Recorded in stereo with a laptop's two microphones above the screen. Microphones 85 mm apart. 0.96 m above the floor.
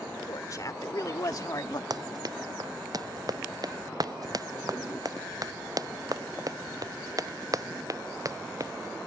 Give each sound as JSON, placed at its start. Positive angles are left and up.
{"t": 0.3, "sound": "a woman speaking", "side_deg": 45}
{"t": 1.9, "sound": "running footsteps", "side_deg": -55}